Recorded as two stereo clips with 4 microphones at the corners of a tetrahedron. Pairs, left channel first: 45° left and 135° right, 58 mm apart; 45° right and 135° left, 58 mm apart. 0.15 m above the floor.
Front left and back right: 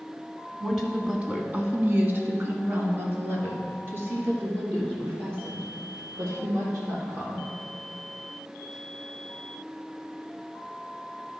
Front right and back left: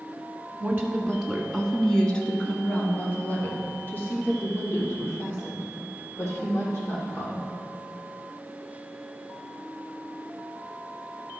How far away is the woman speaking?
About 1.3 m.